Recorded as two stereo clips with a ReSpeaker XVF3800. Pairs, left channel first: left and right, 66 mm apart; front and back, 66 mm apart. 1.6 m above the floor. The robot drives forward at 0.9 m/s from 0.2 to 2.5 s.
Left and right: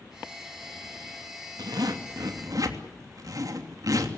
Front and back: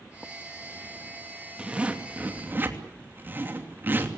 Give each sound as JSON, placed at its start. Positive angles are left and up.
{"t": 1.6, "sound": "a zipper", "azimuth_deg": -105, "distance_m": 2.5}